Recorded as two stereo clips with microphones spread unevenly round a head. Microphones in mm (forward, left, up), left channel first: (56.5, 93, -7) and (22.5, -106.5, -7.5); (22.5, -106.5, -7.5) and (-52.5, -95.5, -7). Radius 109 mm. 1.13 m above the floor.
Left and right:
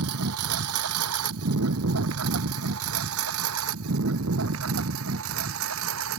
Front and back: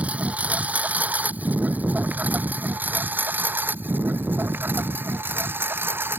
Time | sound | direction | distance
0.0 | a lawn mower | 115° right | ?